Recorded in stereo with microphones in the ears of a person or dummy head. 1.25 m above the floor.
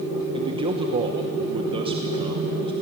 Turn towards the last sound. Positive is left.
turn(degrees=-25)  # may be behind; listen again after turning